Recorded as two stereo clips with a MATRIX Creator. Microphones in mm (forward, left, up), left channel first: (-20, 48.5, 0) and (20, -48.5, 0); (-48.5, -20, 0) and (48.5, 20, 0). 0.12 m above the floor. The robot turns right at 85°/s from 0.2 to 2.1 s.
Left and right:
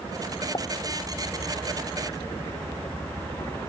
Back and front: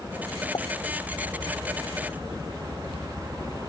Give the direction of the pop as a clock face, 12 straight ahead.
7 o'clock.